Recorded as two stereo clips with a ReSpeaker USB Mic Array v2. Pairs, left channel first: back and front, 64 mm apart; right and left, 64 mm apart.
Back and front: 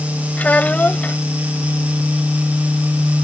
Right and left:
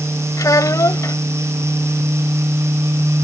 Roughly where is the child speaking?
Behind right.